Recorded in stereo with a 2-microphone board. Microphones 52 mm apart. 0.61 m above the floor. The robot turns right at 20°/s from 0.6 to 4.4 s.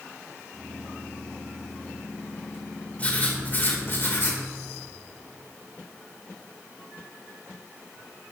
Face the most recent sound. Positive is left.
turn(degrees=50)  # may be behind; listen again after turning